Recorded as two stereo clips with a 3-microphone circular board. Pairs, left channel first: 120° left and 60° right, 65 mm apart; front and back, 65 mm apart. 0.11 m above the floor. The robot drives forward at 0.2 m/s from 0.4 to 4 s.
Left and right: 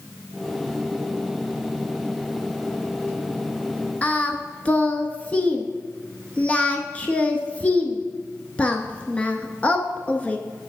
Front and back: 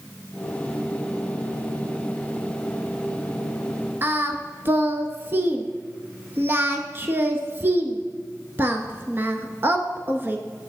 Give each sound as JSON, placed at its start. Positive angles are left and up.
{"t": 4.0, "sound": "singing", "azimuth_deg": 175, "distance_m": 0.7}